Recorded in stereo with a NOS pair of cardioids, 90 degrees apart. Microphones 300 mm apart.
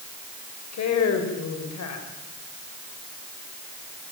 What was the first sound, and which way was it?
A woman speaking, 65° left.